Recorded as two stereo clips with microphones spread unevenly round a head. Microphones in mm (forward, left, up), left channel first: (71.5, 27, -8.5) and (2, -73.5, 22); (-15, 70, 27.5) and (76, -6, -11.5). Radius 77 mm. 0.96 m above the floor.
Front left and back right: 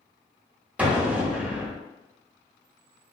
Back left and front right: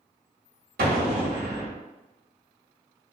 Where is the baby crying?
I don't hear a baby crying.